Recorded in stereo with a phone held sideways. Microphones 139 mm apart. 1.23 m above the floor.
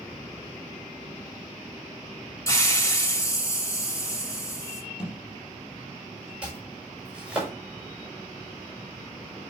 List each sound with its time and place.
2.5 s a hiss: 20° left (ahead or behind), 2 m
5.0 s a thud: 5° right (ahead or behind), 4.5 m
6.4 s chopping: 10° right (ahead or behind), 6 m